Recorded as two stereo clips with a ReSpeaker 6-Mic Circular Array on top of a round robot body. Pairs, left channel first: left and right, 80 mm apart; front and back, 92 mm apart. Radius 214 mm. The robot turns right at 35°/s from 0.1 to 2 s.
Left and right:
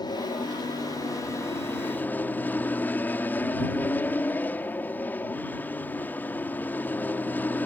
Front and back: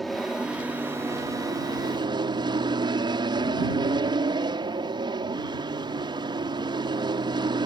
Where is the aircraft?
90° left; by 7.7 s 155° left.